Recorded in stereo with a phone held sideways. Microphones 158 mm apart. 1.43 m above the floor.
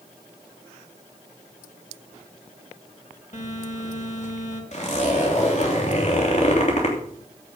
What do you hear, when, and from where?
3.3 s a phone buzzing: 55° left (ahead or behind), 3 m
4.7 s a zipper: 50° left (ahead or behind), 3 m